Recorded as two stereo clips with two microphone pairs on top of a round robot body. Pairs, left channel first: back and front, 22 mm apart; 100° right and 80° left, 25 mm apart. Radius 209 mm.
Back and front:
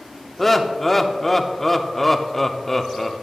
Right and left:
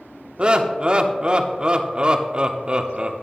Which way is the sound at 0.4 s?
105° left.